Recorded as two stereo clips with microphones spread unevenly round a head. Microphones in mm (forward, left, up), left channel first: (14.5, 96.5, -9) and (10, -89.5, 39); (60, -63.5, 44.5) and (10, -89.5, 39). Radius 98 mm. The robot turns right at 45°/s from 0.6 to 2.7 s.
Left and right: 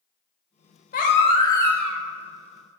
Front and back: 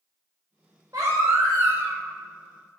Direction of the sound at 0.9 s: 140° left.